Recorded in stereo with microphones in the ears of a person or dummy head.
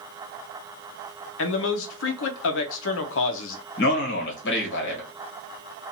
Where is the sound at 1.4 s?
65° left (ahead or behind), 0.6 m.